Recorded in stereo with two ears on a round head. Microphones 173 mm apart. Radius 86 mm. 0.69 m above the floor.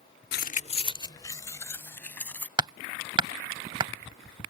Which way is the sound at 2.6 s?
25° right (ahead or behind).